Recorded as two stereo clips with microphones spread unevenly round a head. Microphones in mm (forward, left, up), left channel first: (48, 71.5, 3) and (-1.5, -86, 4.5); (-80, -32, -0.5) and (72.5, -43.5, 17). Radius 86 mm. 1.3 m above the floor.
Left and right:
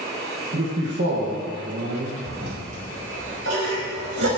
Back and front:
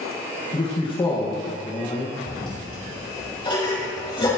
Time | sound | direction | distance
0.5 | a man speaking | 130° right | 1.8 m
2.3 | a toilet flushing | 125° right | 4.5 m